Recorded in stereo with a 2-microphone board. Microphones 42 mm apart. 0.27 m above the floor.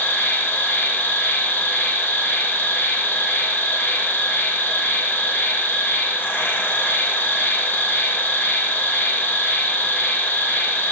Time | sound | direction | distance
0.0 | an insect | 55° left (ahead or behind) | 1.3 m